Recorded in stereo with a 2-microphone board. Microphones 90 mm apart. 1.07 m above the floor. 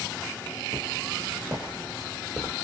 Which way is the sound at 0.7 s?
50° right (ahead or behind).